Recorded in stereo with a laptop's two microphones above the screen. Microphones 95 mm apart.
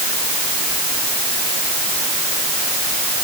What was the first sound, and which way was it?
Only background noise.